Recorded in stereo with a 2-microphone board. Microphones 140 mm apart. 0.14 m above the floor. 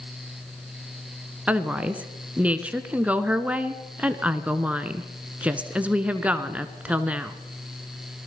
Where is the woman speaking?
10° right (ahead or behind), 1.6 m.